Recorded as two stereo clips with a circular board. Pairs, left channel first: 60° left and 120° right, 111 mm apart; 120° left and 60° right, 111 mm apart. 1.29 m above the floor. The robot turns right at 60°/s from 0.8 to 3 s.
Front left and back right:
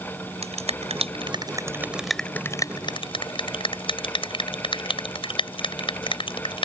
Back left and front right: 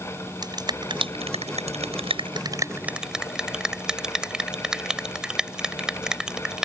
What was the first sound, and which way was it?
A finger snap, 110° right.